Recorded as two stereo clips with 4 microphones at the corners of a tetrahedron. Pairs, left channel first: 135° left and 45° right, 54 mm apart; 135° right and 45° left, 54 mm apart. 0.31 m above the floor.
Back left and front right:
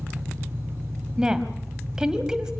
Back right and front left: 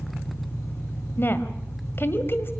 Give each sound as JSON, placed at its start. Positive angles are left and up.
{"t": 0.0, "sound": "an engine running", "azimuth_deg": -90, "distance_m": 4.0}
{"t": 1.2, "sound": "a woman speaking", "azimuth_deg": -115, "distance_m": 1.9}